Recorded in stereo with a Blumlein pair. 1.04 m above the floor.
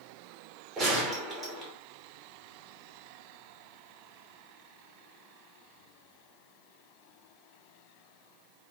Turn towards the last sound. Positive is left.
turn(degrees=-20)